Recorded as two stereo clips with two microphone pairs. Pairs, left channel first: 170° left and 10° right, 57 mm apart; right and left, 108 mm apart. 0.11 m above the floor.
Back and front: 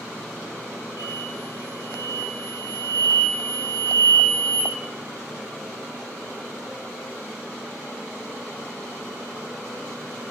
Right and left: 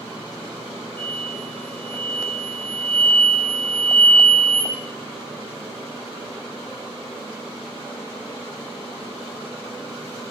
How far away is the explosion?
About 1.3 m.